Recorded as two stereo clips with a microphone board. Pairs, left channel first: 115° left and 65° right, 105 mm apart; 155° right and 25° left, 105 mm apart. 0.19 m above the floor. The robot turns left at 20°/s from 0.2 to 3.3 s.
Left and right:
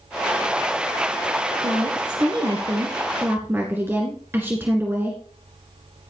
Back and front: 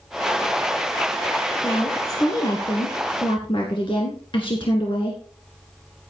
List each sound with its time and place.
1.6 s a woman speaking: 100° right, 2.0 m; by 5.2 s 135° right, 2.0 m